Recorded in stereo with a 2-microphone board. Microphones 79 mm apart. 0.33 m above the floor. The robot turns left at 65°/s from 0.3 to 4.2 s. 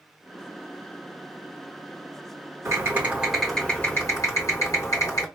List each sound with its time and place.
2.6 s typing on a keyboard: 130° right, 3 m; by 5.3 s 130° left, 3 m